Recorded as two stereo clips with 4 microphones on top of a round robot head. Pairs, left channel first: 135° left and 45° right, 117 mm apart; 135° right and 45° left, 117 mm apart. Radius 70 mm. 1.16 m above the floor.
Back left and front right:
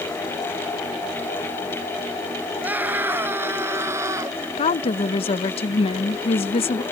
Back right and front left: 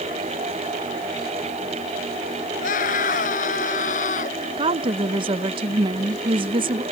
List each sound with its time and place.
2.6 s a scream: 125° right; by 4.5 s 115° right
4.6 s a woman speaking: 95° left